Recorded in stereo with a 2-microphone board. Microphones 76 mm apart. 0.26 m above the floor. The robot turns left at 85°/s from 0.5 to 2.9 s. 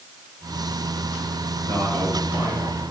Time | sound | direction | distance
1.7 | a man speaking | 90° right | 4.5 m